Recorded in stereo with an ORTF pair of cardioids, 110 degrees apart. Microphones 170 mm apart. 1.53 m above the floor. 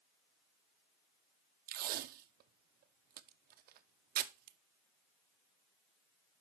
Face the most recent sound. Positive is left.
turn(degrees=-65)